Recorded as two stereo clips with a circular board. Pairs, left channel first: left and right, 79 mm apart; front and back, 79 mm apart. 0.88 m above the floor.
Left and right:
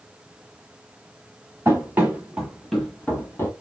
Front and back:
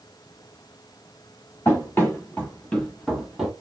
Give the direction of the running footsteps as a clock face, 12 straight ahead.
2 o'clock.